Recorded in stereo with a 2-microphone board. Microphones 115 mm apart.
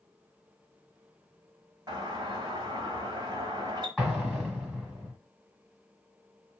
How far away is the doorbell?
About 1.6 m.